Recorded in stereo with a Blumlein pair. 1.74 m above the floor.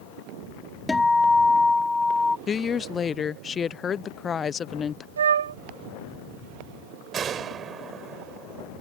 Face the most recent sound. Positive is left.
turn(degrees=-25)